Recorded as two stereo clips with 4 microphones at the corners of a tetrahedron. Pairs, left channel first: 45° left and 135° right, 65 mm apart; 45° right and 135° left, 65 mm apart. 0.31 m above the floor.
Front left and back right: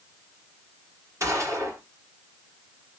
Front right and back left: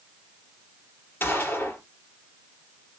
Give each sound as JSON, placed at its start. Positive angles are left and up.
{"t": 1.2, "sound": "a gunshot", "azimuth_deg": -100, "distance_m": 2.5}